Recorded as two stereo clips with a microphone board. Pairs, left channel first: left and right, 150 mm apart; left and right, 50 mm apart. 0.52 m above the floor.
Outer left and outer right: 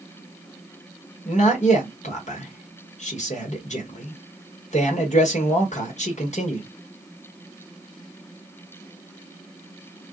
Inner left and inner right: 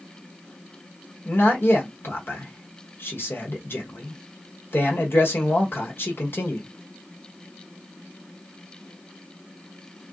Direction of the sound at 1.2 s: 50° left (ahead or behind).